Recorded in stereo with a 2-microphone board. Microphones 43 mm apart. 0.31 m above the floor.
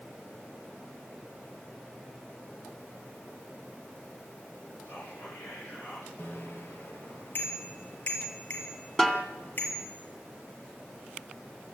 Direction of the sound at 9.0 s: 10° left (ahead or behind).